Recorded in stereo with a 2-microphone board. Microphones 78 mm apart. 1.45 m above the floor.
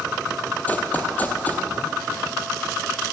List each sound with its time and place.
0.7 s running footsteps: 20° left (ahead or behind), 2 m